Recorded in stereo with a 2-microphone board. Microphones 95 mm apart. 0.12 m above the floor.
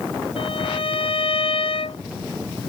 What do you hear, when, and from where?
0.4 s a violin: 75° left (ahead or behind)